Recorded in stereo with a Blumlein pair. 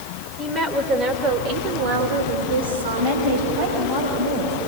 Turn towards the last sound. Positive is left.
turn(degrees=-50)